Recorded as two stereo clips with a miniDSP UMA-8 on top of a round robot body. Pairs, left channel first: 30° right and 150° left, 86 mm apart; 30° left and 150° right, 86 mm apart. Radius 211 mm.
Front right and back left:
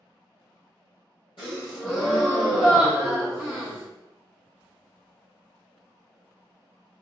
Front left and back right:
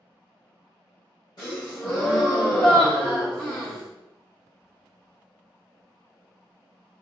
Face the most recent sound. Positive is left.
turn(degrees=-5)